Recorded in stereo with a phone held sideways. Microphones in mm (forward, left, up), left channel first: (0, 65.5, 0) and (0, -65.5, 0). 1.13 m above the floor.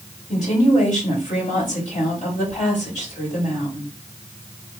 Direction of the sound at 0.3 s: 60° left (ahead or behind).